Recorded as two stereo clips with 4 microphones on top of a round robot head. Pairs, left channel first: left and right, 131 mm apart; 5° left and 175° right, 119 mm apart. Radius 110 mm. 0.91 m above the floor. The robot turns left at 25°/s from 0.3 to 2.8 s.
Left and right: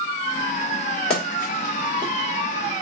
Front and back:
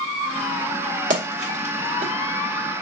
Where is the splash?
175° left, 1.7 m; by 2.1 s 150° left, 1.7 m.